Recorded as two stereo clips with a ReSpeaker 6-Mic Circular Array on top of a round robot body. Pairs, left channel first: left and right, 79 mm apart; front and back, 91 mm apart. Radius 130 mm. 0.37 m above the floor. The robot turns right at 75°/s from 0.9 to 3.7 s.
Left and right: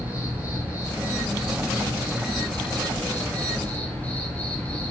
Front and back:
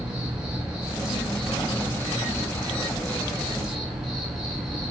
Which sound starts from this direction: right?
An insect, at 0.0 s.